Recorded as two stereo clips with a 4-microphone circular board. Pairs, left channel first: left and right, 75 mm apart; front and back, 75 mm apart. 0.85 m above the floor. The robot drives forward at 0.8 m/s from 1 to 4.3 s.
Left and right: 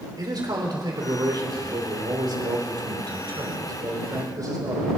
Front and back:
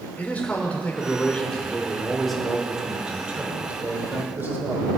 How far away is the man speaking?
About 3 m.